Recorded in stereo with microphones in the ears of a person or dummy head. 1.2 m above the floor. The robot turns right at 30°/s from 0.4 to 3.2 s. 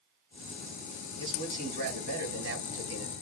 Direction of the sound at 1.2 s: 145° right.